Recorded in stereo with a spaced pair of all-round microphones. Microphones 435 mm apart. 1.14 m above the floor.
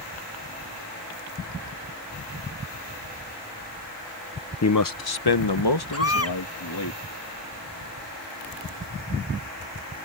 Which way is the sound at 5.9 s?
35° left (ahead or behind).